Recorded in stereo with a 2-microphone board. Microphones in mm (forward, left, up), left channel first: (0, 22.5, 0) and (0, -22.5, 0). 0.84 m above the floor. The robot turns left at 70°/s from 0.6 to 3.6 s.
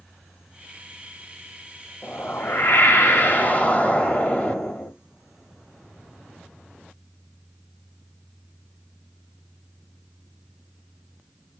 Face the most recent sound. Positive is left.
turn(degrees=35)